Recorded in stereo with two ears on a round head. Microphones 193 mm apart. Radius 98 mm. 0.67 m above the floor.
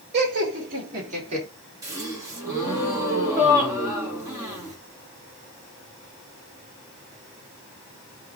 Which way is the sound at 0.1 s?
45° right (ahead or behind).